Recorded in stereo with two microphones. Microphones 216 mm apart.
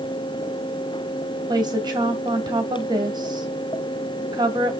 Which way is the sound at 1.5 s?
20° right (ahead or behind).